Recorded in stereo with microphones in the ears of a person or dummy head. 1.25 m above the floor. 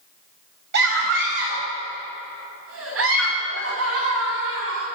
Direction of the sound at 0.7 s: 60° right (ahead or behind).